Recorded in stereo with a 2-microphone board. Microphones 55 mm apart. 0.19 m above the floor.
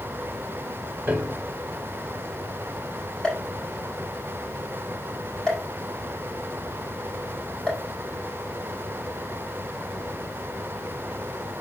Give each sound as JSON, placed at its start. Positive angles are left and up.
{"t": 1.1, "sound": "a piano", "side_deg": -25, "distance_m": 1.4}
{"t": 3.2, "sound": "a pop", "side_deg": 15, "distance_m": 7.5}